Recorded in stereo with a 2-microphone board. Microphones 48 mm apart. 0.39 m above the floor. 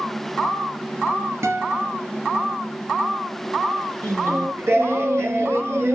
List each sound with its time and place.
1.4 s a guitar: 70° right (ahead or behind), 3 m
4.0 s singing: 65° right (ahead or behind), 3 m